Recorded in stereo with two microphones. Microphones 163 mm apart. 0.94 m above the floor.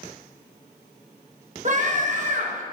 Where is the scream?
50° right (ahead or behind), 1.0 m.